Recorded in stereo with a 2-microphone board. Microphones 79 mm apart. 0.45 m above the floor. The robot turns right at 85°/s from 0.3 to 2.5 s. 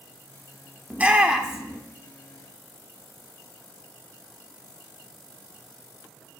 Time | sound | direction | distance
0.9 | a shout | 20° right (ahead or behind) | 0.7 m